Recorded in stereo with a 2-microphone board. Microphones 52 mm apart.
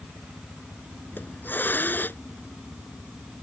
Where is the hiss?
40° left (ahead or behind).